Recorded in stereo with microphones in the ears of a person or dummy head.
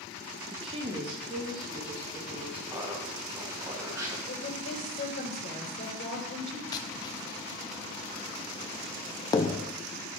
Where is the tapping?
25° left (ahead or behind), 0.7 m.